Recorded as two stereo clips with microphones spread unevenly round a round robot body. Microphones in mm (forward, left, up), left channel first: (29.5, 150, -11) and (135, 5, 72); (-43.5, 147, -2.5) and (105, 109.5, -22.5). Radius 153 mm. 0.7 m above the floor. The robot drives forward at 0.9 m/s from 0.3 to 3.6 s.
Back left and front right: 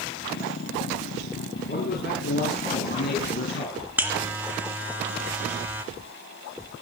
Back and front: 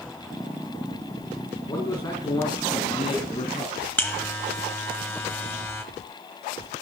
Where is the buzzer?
120° right, 0.7 m.